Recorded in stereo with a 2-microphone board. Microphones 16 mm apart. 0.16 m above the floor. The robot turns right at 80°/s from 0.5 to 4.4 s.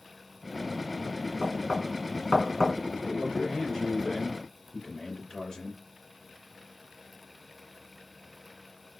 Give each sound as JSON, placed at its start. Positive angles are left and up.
{"t": 1.4, "sound": "knocking", "side_deg": -25, "distance_m": 1.1}
{"t": 3.0, "sound": "a man speaking", "azimuth_deg": 10, "distance_m": 2.5}